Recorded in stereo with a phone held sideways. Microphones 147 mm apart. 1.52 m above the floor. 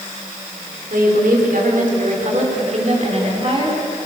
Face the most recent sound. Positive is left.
turn(degrees=-35)  # may be behind; listen again after turning